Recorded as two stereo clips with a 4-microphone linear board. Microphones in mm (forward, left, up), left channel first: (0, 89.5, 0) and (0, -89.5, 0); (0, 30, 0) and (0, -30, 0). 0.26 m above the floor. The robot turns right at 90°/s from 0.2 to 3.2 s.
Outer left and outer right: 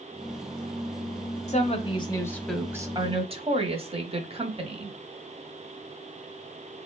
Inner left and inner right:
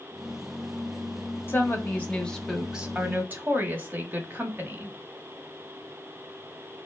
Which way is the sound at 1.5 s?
90° left.